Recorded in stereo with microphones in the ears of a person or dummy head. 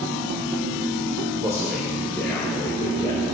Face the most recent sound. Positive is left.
turn(degrees=25)  # may be behind; listen again after turning